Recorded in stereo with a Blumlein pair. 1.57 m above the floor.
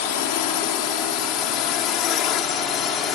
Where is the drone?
45° left; by 3.2 s 30° left.